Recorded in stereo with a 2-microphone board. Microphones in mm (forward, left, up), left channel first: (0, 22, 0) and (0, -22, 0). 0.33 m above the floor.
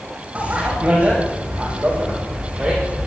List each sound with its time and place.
0.3 s a bicycle bell: 30° right (ahead or behind), 9.5 m; by 3.1 s 25° right (ahead or behind), 11 m